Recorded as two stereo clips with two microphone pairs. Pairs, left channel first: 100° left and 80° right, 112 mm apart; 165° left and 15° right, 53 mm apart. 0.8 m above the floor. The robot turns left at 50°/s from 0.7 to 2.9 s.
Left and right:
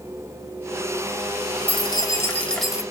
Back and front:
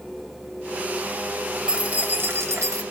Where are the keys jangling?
65° left, 0.9 m; by 2.8 s 5° left, 0.9 m.